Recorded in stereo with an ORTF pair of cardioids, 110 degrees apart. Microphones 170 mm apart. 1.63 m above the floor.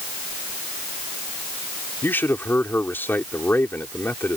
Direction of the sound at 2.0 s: 10° left.